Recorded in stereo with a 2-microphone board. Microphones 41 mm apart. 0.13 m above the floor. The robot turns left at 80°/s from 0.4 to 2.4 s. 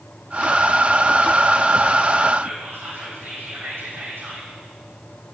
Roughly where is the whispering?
Right.